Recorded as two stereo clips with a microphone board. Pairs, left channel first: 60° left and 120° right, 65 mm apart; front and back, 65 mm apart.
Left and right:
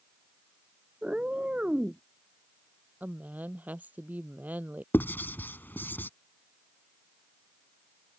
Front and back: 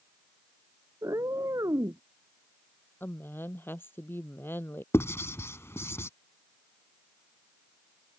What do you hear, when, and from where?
1.0 s a cat meowing: 170° left
3.0 s a woman speaking: 55° right
4.9 s writing: 20° left